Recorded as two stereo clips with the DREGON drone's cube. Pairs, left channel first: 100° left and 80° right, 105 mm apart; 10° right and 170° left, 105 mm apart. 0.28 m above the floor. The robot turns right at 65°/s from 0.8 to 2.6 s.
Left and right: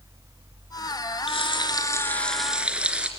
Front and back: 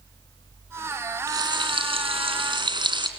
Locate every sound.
1.3 s frying: 115° left, 3 m; by 3.1 s 155° right, 3 m